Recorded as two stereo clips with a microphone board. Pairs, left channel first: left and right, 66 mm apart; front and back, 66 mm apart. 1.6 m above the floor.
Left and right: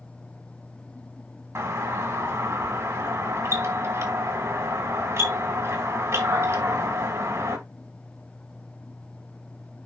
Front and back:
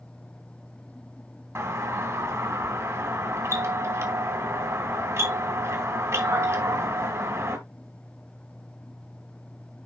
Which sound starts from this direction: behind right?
A doorbell, at 1.6 s.